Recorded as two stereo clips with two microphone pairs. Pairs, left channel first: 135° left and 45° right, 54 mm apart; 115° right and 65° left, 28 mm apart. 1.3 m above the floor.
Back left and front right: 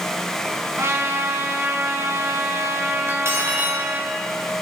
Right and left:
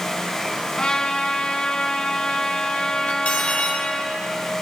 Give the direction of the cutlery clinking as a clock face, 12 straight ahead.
3 o'clock.